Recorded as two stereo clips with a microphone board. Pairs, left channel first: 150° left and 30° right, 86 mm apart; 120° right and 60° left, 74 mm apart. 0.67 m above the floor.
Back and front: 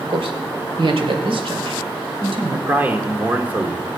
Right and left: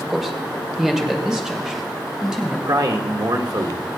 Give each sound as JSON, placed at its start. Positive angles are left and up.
{"t": 0.1, "sound": "a man speaking", "azimuth_deg": -25, "distance_m": 1.7}
{"t": 2.7, "sound": "a man speaking", "azimuth_deg": 40, "distance_m": 1.5}